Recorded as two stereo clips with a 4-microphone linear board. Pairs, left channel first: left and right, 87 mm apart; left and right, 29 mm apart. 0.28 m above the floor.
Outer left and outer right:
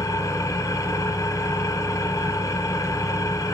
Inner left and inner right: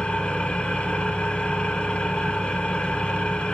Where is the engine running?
40° left (ahead or behind), 1.6 m.